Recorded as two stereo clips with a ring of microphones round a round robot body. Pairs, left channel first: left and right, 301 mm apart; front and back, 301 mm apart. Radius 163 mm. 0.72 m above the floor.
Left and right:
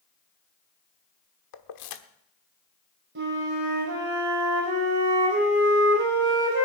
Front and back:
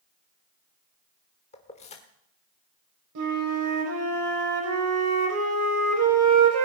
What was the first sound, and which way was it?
Keys jangling, 75° left.